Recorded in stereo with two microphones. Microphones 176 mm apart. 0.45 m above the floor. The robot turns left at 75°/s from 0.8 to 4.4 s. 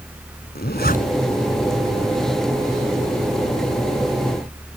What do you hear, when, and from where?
0.6 s a zipper: 65° left (ahead or behind); by 1.3 s 25° left (ahead or behind)